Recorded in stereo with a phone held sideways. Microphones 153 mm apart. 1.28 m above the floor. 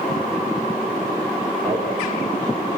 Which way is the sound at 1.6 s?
10° left (ahead or behind).